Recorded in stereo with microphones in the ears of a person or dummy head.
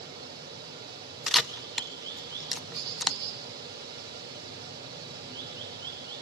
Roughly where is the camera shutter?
Centre.